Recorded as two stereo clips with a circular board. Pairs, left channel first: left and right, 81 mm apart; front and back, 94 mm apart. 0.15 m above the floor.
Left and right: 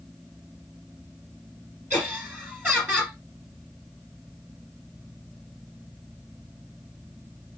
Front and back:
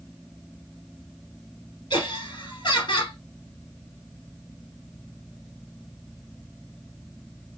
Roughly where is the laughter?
Ahead.